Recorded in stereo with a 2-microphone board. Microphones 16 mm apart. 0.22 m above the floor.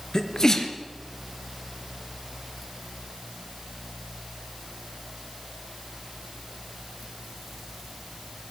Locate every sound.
0.1 s a sneeze: 35° left (ahead or behind), 3.5 m